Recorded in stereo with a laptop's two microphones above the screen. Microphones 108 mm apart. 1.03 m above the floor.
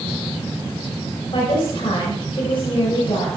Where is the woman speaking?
55° left (ahead or behind), 4.5 m.